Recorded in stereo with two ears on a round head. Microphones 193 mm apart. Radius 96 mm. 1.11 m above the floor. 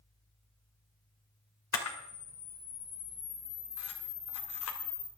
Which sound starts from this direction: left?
A camera shutter, at 1.7 s.